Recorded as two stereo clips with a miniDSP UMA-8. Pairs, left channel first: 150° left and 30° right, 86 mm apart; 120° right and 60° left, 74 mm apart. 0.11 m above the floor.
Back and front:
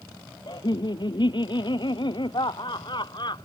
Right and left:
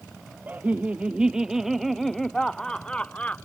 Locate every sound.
0.5 s laughter: 125° left; by 3.5 s 175° left